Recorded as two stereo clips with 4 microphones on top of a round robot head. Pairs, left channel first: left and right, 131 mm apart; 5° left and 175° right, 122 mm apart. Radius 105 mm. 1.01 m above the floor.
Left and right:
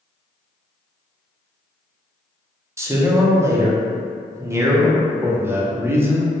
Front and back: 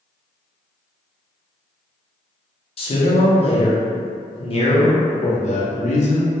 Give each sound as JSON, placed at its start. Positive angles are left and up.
{"t": 2.8, "sound": "a man speaking", "azimuth_deg": -25, "distance_m": 0.7}
{"t": 5.2, "sound": "a man speaking", "azimuth_deg": -15, "distance_m": 0.6}